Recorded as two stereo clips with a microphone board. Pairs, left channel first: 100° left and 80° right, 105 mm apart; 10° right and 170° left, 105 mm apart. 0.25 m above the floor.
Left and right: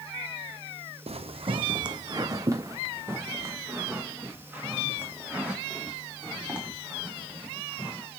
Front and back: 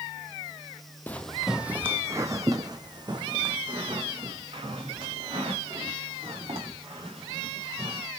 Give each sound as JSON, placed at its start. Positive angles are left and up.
{"t": 1.1, "sound": "footsteps", "azimuth_deg": -85, "distance_m": 0.6}